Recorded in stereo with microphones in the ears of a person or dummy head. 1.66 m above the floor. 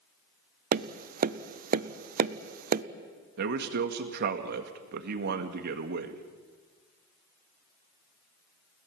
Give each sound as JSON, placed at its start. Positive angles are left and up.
{"t": 0.7, "sound": "tapping", "side_deg": -55, "distance_m": 0.7}
{"t": 3.4, "sound": "a man speaking", "side_deg": -60, "distance_m": 1.9}